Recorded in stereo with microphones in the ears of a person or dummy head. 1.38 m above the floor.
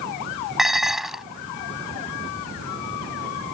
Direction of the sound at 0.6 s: Centre (ahead or behind).